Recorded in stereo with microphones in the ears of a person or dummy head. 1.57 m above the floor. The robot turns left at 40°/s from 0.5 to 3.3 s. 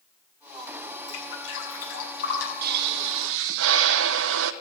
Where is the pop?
55° right (ahead or behind), 0.7 m; by 4.5 s 75° right (ahead or behind), 0.7 m.